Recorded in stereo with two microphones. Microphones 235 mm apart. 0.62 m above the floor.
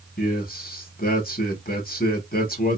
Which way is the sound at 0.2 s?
40° left (ahead or behind).